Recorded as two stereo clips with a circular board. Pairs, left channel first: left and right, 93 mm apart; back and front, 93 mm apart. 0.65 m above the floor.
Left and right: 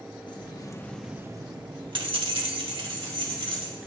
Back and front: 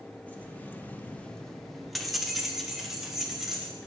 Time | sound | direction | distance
0.3 | keys jangling | 110° left | 0.9 m